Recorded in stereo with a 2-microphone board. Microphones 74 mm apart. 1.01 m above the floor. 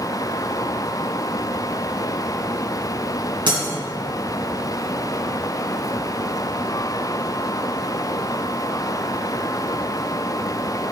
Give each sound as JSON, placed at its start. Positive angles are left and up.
{"t": 3.5, "sound": "breaking glass", "side_deg": -75, "distance_m": 3.0}